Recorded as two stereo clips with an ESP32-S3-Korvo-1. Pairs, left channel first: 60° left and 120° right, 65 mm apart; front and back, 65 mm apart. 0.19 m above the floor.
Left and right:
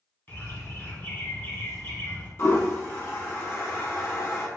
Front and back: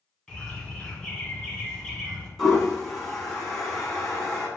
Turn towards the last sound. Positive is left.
turn(degrees=80)